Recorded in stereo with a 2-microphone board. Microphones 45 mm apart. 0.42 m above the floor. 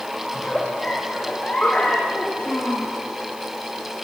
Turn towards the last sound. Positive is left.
turn(degrees=35)  # may be behind; listen again after turning